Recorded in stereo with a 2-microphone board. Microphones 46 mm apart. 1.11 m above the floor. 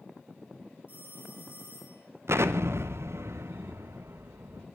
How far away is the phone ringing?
About 4 m.